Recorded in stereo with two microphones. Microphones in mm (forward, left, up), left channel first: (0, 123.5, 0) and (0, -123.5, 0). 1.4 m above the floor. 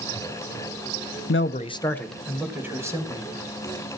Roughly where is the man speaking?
Left.